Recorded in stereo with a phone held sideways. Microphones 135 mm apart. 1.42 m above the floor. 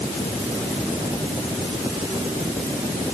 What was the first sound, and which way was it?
Only background noise.